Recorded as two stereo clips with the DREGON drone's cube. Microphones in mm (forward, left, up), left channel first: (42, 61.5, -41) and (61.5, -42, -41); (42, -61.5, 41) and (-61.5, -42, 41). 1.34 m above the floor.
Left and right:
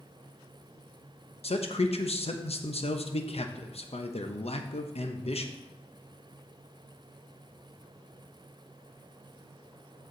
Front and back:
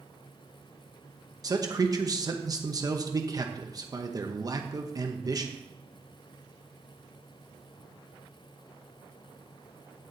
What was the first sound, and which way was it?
A man speaking, 115° left.